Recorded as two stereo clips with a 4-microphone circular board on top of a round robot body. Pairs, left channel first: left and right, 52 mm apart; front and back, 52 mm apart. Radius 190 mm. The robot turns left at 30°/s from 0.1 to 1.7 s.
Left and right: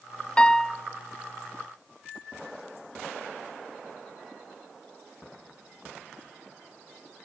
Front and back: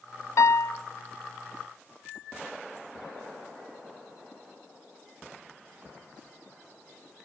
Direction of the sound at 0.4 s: 20° left.